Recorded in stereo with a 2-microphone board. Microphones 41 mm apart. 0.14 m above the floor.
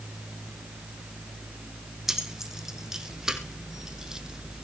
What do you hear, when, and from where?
2.1 s keys jangling: 10° right (ahead or behind), 4.5 m; by 4.7 s 15° right (ahead or behind), 3 m